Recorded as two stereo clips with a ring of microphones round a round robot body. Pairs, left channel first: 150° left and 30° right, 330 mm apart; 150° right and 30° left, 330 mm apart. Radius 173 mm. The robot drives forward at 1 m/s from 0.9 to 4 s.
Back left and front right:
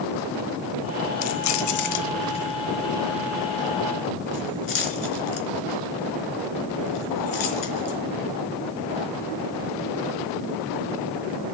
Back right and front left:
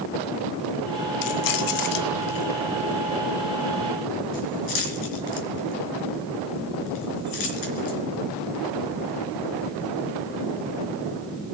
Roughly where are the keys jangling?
Behind.